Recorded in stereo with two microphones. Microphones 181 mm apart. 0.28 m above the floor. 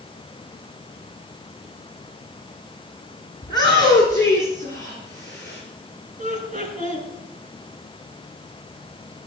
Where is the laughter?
40° right (ahead or behind), 4 m.